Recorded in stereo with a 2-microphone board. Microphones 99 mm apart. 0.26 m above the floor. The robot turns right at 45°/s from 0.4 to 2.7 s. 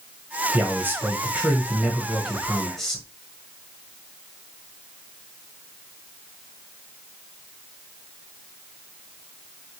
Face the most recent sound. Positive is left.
turn(degrees=5)  # may be behind; listen again after turning